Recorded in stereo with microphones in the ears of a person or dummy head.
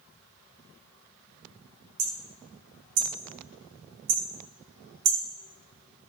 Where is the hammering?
55° right (ahead or behind), 1.1 m.